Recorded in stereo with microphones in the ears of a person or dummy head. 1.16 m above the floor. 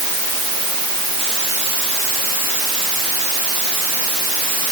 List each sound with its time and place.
Only background noise.